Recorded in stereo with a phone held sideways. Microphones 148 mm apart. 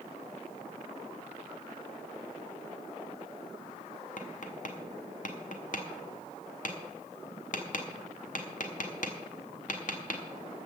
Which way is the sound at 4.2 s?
60° left (ahead or behind).